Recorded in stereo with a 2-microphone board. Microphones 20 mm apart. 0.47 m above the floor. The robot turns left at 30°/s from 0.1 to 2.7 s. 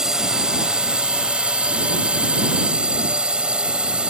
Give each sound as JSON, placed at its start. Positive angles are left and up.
{"t": 0.0, "sound": "a drone", "azimuth_deg": -35}